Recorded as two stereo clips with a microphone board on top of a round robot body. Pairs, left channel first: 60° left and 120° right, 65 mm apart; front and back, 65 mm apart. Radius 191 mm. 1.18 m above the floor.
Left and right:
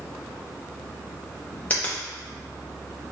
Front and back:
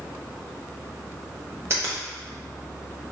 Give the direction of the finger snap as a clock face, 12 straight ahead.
8 o'clock.